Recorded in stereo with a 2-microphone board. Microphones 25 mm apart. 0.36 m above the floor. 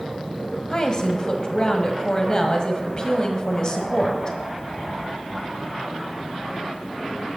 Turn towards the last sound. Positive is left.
turn(degrees=40)  # may be behind; listen again after turning